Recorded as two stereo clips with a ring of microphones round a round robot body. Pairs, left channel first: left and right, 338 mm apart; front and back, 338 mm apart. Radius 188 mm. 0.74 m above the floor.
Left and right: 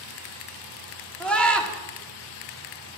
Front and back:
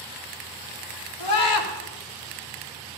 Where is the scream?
5° left, 2 m.